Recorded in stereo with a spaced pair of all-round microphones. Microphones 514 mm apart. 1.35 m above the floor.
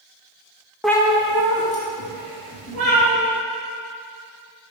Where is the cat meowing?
Centre (ahead or behind), 0.6 m; by 3.1 s 45° left (ahead or behind), 3 m.